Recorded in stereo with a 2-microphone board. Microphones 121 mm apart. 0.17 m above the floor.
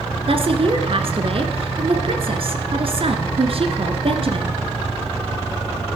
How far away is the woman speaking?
About 1.8 m.